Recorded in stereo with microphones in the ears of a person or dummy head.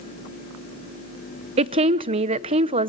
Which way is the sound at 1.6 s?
30° right (ahead or behind).